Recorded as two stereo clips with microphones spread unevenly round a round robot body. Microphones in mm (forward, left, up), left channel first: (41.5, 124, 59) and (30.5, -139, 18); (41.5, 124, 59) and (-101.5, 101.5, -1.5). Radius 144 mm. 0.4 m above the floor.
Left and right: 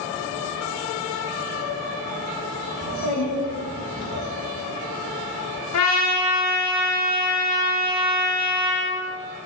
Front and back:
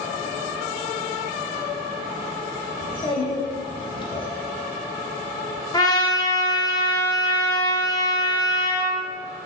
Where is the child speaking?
75° left, 1.0 m.